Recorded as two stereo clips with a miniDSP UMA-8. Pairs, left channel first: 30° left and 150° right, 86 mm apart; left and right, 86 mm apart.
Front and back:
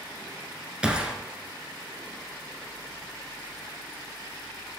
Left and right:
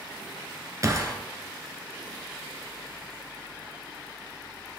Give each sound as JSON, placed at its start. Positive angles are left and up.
{"t": 0.8, "sound": "a gunshot", "azimuth_deg": -80, "distance_m": 1.2}